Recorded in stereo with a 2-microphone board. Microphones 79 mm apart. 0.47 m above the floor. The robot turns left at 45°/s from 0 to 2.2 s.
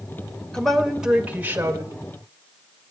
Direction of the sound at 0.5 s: 10° left.